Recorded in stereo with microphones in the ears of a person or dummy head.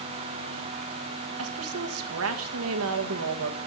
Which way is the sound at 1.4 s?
80° right.